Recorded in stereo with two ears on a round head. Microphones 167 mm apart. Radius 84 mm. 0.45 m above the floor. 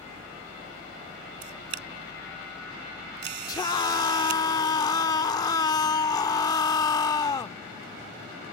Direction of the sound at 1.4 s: 60° right (ahead or behind).